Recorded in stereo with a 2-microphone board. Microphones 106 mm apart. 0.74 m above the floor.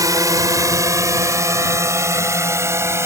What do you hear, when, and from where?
0.0 s a drone: 35° right (ahead or behind); by 3.1 s 25° right (ahead or behind)